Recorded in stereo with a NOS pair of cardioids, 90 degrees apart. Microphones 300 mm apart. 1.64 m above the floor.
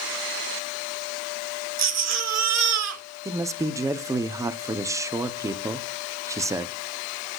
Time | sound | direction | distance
1.8 | a baby crying | 60° right | 1.8 m
3.2 | a man speaking | 10° right | 0.7 m